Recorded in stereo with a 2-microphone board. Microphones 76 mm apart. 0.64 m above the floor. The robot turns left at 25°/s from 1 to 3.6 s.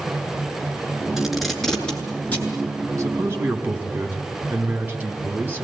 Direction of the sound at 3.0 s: 45° right (ahead or behind).